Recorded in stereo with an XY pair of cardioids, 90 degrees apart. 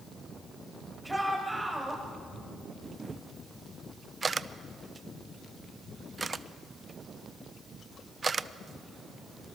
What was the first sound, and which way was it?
A shout, 5° right.